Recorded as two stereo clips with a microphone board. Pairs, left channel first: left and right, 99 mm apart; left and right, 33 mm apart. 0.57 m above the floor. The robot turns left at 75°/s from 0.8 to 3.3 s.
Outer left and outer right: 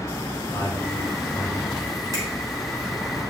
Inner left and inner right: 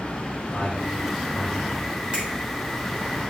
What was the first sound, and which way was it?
A man speaking, 60° left (ahead or behind).